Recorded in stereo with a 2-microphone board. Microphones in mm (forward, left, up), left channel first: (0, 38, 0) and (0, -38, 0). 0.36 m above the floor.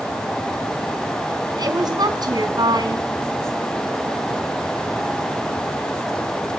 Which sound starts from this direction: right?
A woman speaking, at 1.6 s.